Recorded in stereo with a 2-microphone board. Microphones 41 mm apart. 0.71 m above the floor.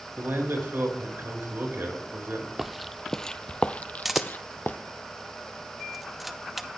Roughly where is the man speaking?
Right.